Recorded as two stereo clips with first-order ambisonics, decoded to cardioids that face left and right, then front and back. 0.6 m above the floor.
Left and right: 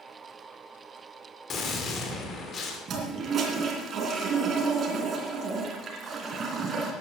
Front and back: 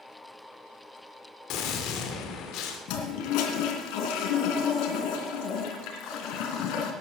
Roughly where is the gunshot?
Ahead left.